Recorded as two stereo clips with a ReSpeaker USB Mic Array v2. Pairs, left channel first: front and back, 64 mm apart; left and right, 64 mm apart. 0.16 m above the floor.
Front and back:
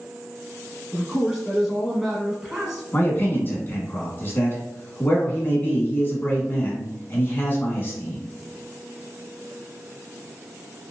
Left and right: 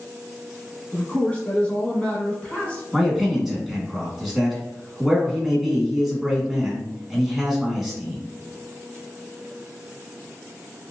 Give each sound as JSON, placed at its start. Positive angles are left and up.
{"t": 0.9, "sound": "a man speaking", "azimuth_deg": 105, "distance_m": 1.0}
{"t": 2.9, "sound": "a man speaking", "azimuth_deg": -10, "distance_m": 1.1}